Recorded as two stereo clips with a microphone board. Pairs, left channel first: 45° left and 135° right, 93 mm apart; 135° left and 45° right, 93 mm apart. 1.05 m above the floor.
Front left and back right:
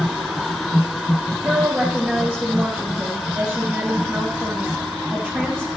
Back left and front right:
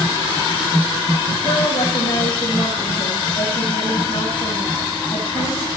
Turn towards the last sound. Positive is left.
turn(degrees=150)